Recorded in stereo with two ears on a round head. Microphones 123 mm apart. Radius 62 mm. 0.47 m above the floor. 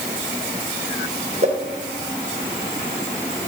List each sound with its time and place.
1.4 s a whoosh: 50° right (ahead or behind), 2.5 m